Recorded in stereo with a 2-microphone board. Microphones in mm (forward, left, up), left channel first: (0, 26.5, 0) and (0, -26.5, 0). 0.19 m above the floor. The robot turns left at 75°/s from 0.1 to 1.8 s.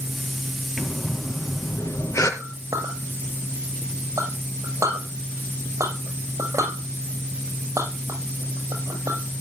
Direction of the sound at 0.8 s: 175° left.